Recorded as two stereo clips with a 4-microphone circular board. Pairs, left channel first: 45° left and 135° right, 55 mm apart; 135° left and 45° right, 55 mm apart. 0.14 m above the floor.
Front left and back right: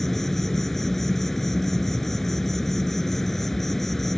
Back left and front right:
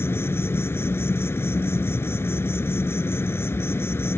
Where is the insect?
130° left.